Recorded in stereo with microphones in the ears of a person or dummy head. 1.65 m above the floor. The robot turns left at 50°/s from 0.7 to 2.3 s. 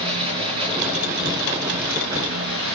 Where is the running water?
25° right, 7 m; by 2.8 s 105° right, 7 m.